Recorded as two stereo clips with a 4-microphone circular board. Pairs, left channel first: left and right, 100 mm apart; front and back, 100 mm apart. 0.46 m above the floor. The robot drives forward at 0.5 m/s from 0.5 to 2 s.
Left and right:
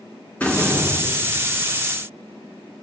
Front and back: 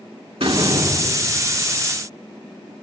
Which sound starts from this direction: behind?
A door slam, at 0.4 s.